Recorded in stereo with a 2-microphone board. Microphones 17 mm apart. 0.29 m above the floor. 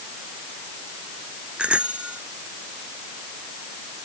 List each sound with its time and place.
1.6 s a bicycle bell: 85° right